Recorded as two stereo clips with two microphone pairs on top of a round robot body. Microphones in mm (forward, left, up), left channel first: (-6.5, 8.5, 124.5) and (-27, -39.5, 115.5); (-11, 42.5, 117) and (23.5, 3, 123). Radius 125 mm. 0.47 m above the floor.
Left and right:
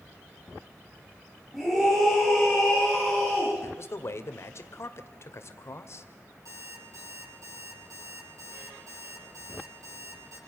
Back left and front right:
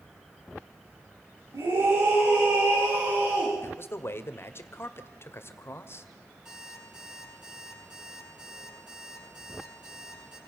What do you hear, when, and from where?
1.5 s a scream: 30° right, 6.5 m; by 3.5 s 20° right, 6.5 m
3.6 s a man speaking: 100° left, 2 m
6.5 s an alarm clock: 130° right, 8.5 m